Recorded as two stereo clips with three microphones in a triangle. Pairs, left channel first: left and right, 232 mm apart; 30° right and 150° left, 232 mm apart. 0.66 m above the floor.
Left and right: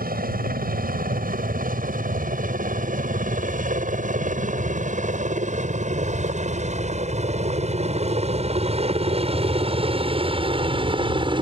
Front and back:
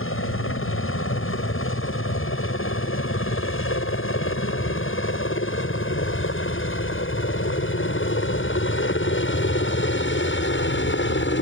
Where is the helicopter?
45° right; by 11.4 s 25° right.